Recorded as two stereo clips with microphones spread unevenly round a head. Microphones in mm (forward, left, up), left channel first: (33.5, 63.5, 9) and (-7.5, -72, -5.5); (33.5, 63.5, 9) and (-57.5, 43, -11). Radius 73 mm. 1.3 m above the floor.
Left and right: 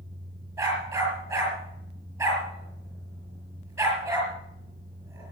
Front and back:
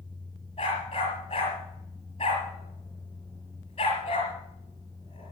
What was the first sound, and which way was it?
A dog barking, 40° right.